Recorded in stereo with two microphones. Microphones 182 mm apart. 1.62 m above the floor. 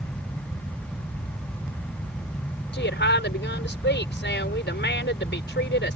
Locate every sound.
2.7 s a woman speaking: 75° left (ahead or behind)